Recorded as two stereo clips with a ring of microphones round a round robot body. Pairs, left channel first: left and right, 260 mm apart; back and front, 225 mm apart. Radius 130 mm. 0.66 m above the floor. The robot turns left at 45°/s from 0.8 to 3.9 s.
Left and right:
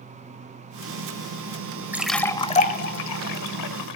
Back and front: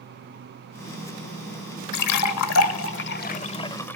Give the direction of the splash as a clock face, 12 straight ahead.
6 o'clock.